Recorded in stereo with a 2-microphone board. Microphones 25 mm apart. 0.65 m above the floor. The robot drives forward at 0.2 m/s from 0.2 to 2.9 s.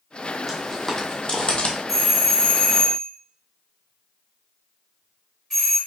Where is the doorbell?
10° left (ahead or behind), 1.4 m.